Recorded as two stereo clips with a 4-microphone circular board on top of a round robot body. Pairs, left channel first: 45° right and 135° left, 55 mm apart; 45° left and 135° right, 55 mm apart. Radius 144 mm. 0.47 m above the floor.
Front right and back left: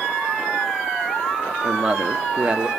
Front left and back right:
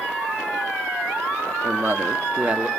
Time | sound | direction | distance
1.6 | a man speaking | 155° right | 1.3 m